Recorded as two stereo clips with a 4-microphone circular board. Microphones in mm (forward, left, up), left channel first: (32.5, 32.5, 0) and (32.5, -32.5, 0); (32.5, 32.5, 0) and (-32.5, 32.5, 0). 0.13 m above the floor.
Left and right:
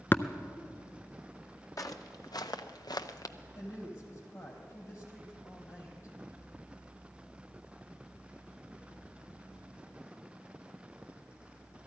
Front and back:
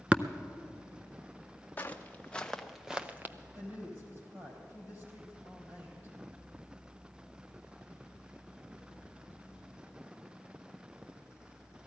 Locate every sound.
0.1 s tapping: 120° left, 0.6 m
1.8 s footsteps: 60° left, 1.4 m; by 3.4 s 125° left, 0.9 m
3.5 s a woman speaking: 130° left, 4.5 m